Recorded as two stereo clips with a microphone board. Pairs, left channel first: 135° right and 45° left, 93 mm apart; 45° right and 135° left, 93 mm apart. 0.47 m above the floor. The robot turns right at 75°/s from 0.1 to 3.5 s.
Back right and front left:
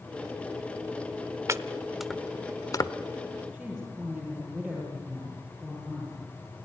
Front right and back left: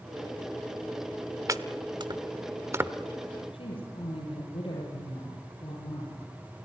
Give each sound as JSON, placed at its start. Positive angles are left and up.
{"t": 1.5, "sound": "chopping", "azimuth_deg": 95, "distance_m": 0.8}
{"t": 3.5, "sound": "a woman speaking", "azimuth_deg": -45, "distance_m": 9.0}